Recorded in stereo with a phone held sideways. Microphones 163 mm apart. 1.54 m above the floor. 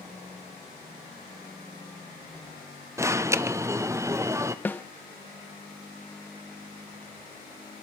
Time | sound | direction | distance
3.0 | an alarm | 15° right (ahead or behind) | 0.6 m
4.7 | a snare drum | 10° left (ahead or behind) | 0.7 m